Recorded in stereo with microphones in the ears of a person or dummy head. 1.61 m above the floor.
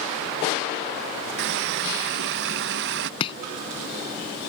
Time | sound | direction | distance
1.4 | a running tap | 65° right (ahead or behind) | ?
3.2 | chopping | 30° left (ahead or behind) | ?